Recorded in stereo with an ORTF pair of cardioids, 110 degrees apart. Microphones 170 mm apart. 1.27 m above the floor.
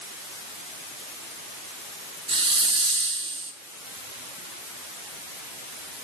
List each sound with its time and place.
2.3 s a hiss: 30° right, 1.3 m